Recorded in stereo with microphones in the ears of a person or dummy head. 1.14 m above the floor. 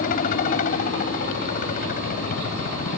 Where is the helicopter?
50° left (ahead or behind).